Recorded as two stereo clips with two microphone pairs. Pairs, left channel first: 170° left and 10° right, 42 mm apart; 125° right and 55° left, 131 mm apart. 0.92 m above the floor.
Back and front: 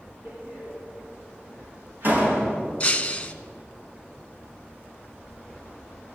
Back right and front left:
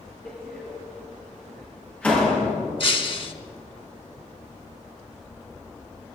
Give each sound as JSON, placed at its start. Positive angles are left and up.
{"t": 0.2, "sound": "a door slam", "azimuth_deg": -50, "distance_m": 7.0}
{"t": 2.8, "sound": "breaking glass", "azimuth_deg": -140, "distance_m": 1.1}